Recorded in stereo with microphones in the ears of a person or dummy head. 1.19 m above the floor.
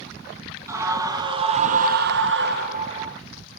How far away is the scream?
About 1.8 m.